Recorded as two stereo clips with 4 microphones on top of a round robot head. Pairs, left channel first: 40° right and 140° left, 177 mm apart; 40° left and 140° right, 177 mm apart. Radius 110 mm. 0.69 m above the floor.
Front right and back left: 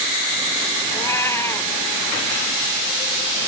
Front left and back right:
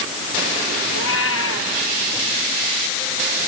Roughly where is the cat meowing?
Ahead left.